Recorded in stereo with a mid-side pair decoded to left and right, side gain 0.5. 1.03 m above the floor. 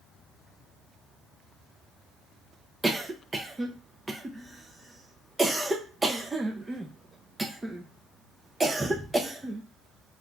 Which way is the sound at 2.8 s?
20° right.